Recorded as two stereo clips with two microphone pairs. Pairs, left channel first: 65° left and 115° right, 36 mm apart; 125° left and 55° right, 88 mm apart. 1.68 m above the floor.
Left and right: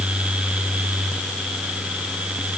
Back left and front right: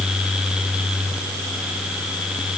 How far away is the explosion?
I don't hear an explosion.